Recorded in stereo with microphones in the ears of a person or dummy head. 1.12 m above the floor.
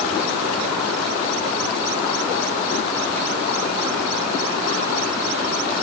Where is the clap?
I don't hear a clap.